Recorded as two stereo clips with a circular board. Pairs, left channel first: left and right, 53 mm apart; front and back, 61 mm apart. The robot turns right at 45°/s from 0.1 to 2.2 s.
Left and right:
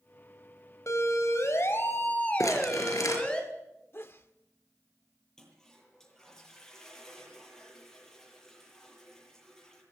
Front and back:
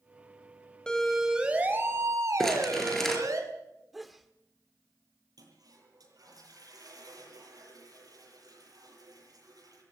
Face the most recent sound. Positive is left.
turn(degrees=170)